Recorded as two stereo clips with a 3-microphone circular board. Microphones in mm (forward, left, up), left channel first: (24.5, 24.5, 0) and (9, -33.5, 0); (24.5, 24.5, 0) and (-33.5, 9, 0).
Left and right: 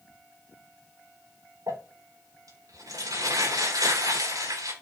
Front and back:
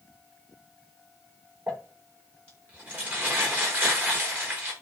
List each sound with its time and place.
1.7 s crumpling: 105° right, 9 m